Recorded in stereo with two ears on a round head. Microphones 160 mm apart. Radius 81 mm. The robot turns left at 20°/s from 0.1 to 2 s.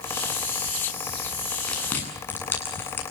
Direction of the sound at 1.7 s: 5° left (ahead or behind).